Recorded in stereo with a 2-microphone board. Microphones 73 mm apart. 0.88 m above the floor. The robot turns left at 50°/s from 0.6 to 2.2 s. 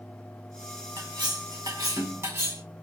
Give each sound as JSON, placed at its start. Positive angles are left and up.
{"t": 1.0, "sound": "cutlery clinking", "azimuth_deg": -75, "distance_m": 1.3}